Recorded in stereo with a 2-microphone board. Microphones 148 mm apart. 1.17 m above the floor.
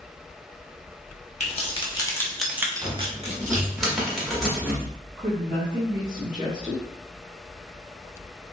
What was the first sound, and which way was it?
Keys jangling, 45° left (ahead or behind).